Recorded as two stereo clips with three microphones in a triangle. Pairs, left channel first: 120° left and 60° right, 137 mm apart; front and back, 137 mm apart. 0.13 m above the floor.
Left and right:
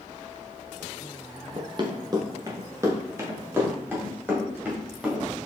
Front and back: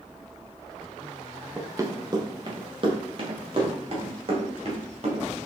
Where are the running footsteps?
110° right, 1.1 m; by 5.3 s 140° right, 3 m.